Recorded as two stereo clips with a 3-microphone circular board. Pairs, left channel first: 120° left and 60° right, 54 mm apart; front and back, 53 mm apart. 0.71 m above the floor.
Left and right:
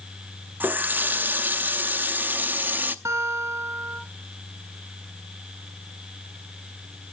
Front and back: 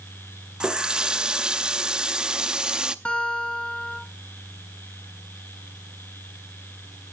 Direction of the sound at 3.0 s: 65° right.